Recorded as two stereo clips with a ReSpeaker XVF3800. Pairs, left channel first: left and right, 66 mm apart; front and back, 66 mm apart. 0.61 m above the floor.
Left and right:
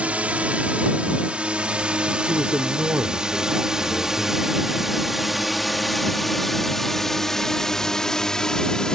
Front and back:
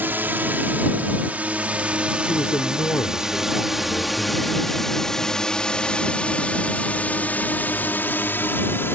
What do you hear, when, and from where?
0.0 s a drone: 145° right; by 9.0 s 20° left
2.2 s a man speaking: 30° right